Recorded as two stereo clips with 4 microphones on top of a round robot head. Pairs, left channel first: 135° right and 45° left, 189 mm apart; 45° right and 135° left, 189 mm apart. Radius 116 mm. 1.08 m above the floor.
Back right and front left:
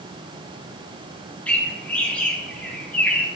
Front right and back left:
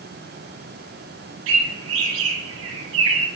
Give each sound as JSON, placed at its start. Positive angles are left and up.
{"t": 1.5, "sound": "a bird", "azimuth_deg": 145, "distance_m": 0.7}